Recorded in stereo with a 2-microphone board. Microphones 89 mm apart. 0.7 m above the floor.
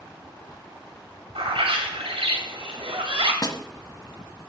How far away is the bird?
About 2 m.